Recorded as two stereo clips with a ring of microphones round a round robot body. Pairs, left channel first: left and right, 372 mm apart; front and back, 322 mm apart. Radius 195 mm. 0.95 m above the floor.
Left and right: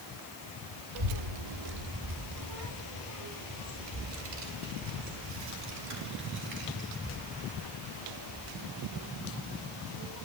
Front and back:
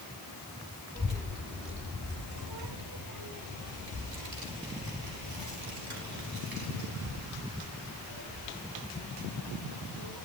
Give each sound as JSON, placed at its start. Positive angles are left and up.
{"t": 0.9, "sound": "a child speaking", "azimuth_deg": -100, "distance_m": 1.1}